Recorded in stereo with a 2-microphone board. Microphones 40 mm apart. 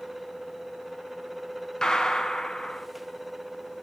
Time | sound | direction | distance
1.8 | a gunshot | 20° left (ahead or behind) | 0.7 m